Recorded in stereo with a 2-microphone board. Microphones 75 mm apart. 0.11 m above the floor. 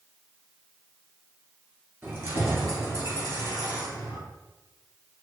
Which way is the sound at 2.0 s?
35° right (ahead or behind).